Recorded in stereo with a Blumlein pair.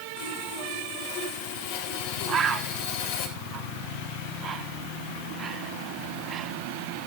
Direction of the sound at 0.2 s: 50° left.